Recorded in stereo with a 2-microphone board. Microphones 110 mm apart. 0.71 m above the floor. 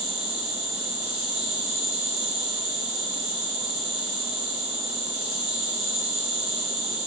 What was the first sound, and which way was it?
An insect, 40° left (ahead or behind).